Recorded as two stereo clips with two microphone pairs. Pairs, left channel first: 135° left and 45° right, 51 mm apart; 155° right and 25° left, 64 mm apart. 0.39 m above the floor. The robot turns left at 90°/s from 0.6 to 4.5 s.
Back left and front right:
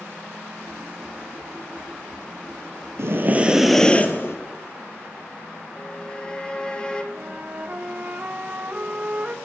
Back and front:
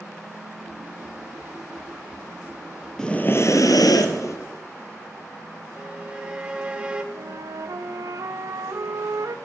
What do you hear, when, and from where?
3.0 s breathing: 75° right, 1.7 m; by 4.4 s 165° left, 1.7 m
5.8 s a violin: 80° left, 1.5 m
7.1 s a flute: 10° left, 0.8 m